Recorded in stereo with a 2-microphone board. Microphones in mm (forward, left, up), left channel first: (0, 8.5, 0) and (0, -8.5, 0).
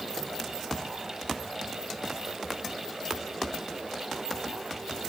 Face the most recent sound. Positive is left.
No sound to turn to.